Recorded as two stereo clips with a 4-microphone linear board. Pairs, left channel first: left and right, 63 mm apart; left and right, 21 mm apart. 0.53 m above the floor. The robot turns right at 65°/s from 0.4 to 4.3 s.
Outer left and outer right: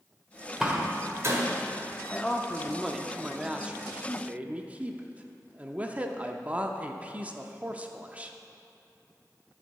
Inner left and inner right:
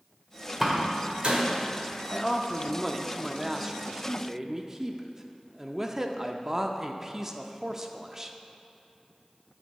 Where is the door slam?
10° right (ahead or behind), 1.6 m; by 1.4 s 55° right (ahead or behind), 1.6 m.